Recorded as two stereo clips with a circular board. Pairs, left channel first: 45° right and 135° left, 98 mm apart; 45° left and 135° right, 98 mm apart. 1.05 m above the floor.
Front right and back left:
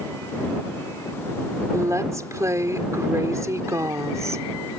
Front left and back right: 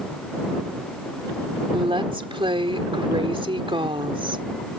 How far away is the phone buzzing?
I don't hear a phone buzzing.